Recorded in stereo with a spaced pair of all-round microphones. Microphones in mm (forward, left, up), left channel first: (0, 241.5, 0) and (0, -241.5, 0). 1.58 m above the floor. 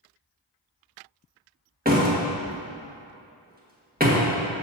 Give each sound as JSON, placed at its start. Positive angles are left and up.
{"t": 1.9, "sound": "a door slam", "side_deg": -20, "distance_m": 1.6}